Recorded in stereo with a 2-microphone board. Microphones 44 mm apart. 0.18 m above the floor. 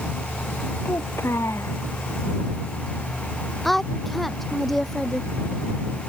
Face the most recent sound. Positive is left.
turn(degrees=5)  # may be behind; listen again after turning